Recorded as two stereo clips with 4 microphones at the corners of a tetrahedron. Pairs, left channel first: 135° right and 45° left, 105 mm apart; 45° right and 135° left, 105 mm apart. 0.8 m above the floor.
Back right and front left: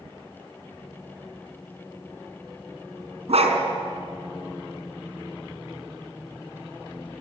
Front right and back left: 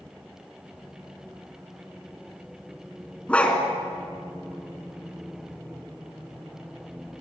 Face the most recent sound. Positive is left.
turn(degrees=35)